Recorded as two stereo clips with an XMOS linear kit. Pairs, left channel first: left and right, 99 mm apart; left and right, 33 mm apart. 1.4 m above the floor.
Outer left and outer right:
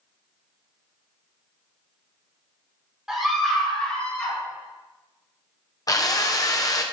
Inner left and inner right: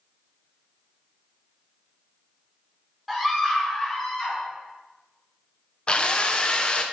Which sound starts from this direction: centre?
A scream, at 3.1 s.